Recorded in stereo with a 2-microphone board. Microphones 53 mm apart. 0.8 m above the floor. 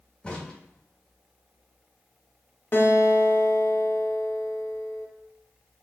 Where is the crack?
20° left (ahead or behind), 1.4 m.